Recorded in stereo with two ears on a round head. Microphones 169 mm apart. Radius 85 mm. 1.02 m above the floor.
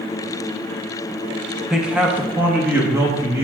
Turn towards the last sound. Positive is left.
turn(degrees=-15)  # may be behind; listen again after turning